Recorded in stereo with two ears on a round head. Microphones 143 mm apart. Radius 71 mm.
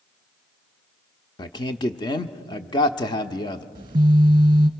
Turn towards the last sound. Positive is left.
turn(degrees=-30)  # may be behind; listen again after turning